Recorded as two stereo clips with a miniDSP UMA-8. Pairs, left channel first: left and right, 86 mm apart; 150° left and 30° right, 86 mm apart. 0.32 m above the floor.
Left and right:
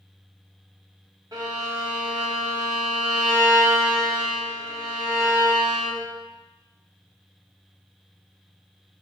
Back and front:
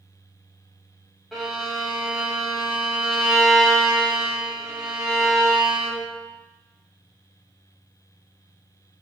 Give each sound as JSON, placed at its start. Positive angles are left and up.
{"t": 1.3, "sound": "a violin", "azimuth_deg": -120, "distance_m": 1.1}